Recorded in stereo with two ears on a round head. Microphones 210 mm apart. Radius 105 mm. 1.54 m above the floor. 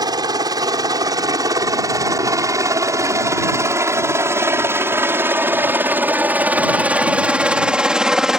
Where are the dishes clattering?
No dishes clattering in this recording.